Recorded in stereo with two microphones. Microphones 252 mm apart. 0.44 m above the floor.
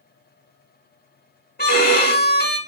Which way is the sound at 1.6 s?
40° left (ahead or behind).